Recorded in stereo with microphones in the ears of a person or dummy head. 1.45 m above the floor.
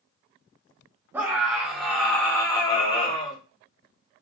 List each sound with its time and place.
1.1 s a scream: 15° right (ahead or behind), 1.5 m; by 3.4 s 30° left (ahead or behind), 1.7 m